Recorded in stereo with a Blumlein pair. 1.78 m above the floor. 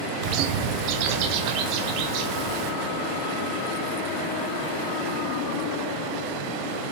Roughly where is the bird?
Ahead right.